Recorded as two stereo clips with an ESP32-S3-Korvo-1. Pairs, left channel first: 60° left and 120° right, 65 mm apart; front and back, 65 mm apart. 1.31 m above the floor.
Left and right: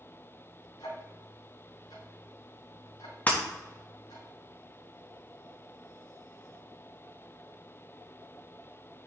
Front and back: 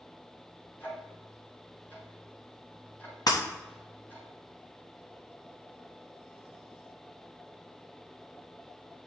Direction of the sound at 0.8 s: 60° left.